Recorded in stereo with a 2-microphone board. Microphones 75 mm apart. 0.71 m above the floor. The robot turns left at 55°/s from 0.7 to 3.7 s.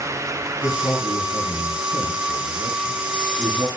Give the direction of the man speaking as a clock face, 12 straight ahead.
8 o'clock.